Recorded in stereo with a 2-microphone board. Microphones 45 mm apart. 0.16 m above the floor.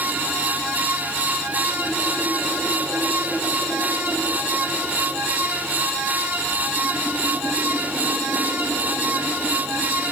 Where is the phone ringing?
I don't hear a phone ringing.